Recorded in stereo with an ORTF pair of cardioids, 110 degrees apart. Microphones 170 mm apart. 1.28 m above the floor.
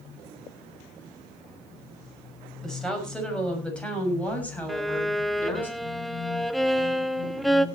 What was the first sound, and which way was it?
A woman speaking, 5° left.